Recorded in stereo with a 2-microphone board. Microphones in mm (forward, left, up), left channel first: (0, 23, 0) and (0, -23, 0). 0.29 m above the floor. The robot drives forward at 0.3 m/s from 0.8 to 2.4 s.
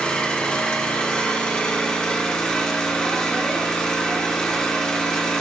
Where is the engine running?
25° left (ahead or behind), 1.6 m; by 5.4 s 20° left (ahead or behind), 2 m.